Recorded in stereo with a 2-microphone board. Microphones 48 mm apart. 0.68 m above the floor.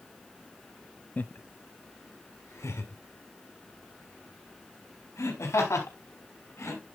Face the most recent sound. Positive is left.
turn(degrees=70)  # may be behind; listen again after turning